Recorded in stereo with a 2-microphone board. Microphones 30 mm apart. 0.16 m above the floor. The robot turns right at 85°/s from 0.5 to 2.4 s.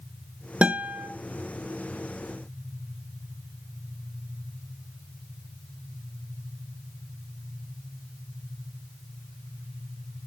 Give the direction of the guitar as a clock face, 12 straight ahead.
4 o'clock.